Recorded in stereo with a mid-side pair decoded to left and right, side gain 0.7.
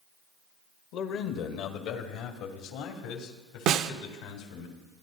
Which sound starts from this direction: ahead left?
A man speaking, at 0.9 s.